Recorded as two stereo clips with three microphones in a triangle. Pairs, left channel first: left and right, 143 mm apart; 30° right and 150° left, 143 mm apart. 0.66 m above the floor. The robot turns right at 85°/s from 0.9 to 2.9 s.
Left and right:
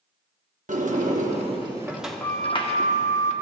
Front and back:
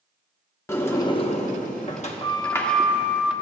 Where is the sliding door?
100° right, 1.0 m; by 3.3 s 70° left, 1.0 m.